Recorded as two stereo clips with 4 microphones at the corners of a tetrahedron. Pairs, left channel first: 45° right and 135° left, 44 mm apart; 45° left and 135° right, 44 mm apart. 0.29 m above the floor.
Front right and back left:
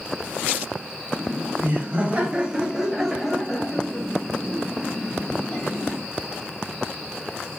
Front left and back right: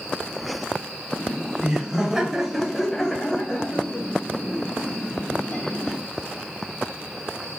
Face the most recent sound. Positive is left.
turn(degrees=-5)